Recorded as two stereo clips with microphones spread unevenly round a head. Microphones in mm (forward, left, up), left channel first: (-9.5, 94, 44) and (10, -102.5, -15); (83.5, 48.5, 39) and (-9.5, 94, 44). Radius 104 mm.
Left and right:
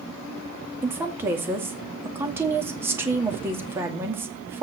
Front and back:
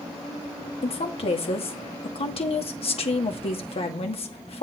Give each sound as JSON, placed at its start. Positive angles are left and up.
{"t": 0.8, "sound": "a woman speaking", "azimuth_deg": -10, "distance_m": 2.0}